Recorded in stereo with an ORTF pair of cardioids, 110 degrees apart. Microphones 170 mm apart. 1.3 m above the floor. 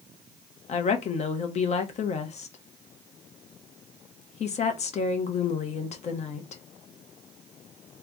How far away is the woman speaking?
About 1.1 m.